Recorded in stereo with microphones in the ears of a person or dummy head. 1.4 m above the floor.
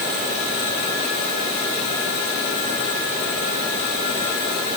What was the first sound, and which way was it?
Only background noise.